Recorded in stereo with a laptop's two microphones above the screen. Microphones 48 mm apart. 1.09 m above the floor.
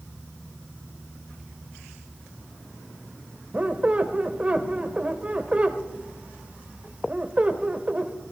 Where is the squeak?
30° right (ahead or behind), 1.3 m.